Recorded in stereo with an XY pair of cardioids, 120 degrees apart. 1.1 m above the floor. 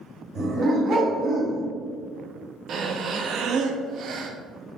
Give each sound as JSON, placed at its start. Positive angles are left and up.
{"t": 0.3, "sound": "a dog barking", "azimuth_deg": -50, "distance_m": 2.5}
{"t": 2.7, "sound": "breathing", "azimuth_deg": -55, "distance_m": 0.9}